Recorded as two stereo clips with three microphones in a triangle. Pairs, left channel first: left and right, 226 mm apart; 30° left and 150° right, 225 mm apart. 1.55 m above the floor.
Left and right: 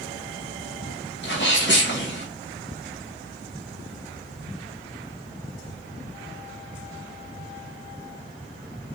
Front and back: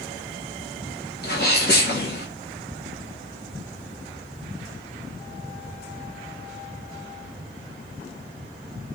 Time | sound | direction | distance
1.2 | a sneeze | 65° left | 0.9 m